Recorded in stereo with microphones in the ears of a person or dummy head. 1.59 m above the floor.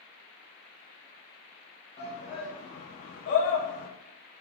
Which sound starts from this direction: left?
A shout, at 2.0 s.